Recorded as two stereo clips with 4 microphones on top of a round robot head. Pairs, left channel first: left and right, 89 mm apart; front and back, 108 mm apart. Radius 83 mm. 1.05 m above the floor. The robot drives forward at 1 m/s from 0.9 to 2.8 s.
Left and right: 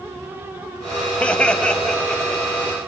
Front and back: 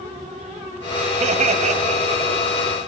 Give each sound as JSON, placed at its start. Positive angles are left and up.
{"t": 1.2, "sound": "laughter", "azimuth_deg": 165, "distance_m": 1.9}